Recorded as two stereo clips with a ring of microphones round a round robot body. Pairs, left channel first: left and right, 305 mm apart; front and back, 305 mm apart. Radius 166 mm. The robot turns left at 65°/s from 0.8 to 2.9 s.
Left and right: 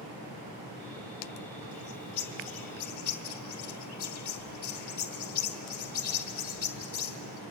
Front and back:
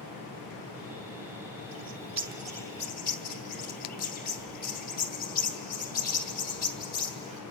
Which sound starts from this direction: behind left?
A bird, at 1.7 s.